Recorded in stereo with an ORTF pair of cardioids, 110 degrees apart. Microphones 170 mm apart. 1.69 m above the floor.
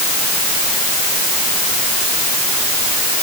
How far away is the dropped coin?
No dropped coin in this recording.